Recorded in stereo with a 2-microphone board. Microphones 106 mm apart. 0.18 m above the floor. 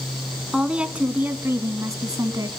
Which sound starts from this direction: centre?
A woman speaking, at 0.5 s.